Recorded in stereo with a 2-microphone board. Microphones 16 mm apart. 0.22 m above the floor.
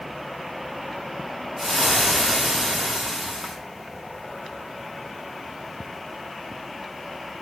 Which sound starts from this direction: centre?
Frying, at 1.6 s.